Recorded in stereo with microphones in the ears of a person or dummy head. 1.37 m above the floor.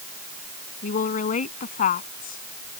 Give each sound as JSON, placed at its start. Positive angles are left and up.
{"t": 0.8, "sound": "a woman speaking", "side_deg": 50}